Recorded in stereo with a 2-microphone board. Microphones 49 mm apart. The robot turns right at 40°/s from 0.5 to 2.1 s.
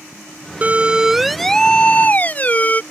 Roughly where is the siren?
Right.